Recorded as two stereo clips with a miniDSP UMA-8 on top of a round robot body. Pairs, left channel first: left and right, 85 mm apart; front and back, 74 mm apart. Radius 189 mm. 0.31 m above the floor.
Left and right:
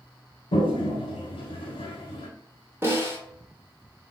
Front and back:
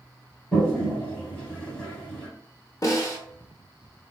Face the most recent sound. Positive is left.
turn(degrees=-35)